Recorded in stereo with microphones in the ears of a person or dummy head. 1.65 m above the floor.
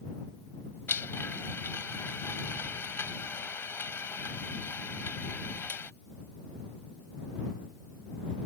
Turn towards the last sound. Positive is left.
turn(degrees=10)  # may be behind; listen again after turning